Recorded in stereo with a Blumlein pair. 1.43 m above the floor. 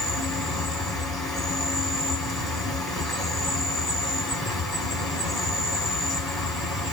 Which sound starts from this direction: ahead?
An insect, at 0.0 s.